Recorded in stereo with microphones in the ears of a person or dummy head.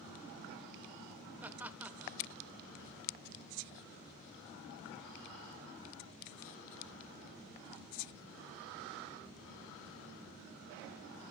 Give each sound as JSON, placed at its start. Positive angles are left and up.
{"t": 1.4, "sound": "laughter", "side_deg": -10, "distance_m": 1.4}